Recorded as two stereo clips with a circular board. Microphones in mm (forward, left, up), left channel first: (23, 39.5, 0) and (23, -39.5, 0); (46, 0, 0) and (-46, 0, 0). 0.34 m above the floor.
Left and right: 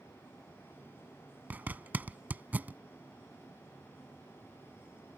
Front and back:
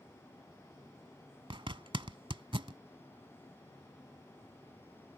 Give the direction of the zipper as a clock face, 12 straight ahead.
5 o'clock.